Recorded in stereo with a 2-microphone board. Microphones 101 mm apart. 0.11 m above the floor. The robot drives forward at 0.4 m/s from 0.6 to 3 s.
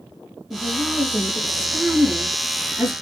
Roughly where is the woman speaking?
Centre.